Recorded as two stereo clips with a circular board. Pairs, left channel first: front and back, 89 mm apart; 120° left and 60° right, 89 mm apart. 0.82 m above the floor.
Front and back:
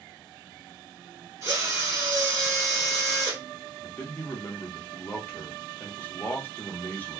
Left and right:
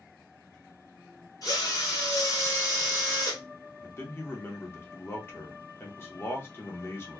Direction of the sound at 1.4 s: 140° left.